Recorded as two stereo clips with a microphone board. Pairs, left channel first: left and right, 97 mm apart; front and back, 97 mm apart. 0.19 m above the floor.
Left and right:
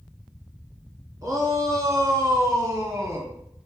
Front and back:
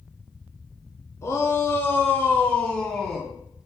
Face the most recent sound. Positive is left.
turn(degrees=-95)